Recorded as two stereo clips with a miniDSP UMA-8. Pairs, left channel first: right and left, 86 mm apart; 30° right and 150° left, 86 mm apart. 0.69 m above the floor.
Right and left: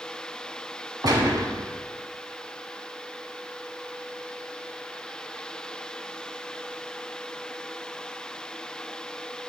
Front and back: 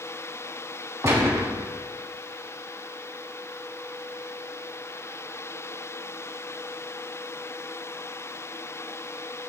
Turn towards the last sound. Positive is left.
turn(degrees=100)